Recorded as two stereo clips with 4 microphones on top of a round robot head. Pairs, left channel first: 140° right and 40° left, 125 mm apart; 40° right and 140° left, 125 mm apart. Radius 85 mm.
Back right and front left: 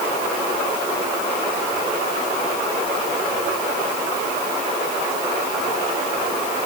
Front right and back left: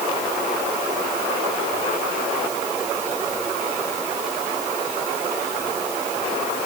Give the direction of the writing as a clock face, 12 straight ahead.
I don't hear writing.